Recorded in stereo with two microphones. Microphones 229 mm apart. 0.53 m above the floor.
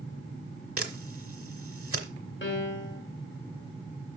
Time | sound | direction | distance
0.8 | a camera shutter | 70° right (ahead or behind) | 1.2 m
2.4 | a piano | 55° left (ahead or behind) | 1.6 m